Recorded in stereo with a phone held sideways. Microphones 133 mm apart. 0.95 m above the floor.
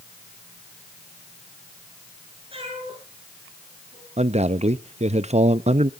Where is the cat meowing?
40° right (ahead or behind), 7.5 m.